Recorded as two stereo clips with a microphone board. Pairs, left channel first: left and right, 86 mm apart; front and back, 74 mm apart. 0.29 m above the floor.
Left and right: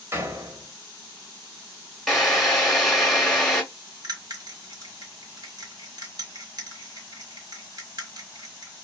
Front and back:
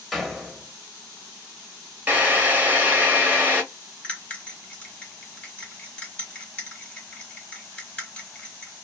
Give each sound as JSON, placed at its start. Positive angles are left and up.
{"t": 0.1, "sound": "a door slam", "azimuth_deg": -90, "distance_m": 0.7}
{"t": 2.1, "sound": "a drill", "azimuth_deg": 165, "distance_m": 1.0}
{"t": 4.0, "sound": "a bell", "azimuth_deg": -70, "distance_m": 1.2}